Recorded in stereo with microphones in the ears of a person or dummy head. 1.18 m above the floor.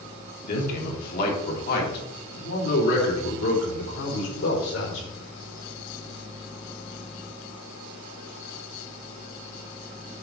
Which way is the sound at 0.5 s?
50° left (ahead or behind).